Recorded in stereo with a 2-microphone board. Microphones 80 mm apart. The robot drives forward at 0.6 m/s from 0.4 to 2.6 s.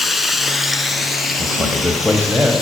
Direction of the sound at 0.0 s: Centre (ahead or behind).